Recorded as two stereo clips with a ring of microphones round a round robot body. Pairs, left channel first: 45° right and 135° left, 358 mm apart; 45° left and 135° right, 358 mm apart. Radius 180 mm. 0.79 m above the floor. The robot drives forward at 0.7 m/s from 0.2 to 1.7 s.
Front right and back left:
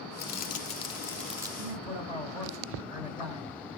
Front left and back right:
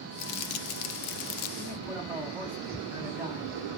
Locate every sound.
0.2 s crumpling: 20° left, 1.3 m; by 1.5 s 60° left, 0.7 m
1.6 s a man speaking: 145° left, 5 m